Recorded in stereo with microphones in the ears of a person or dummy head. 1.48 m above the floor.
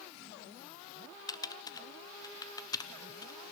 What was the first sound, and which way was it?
Typing on a keyboard, 25° left (ahead or behind).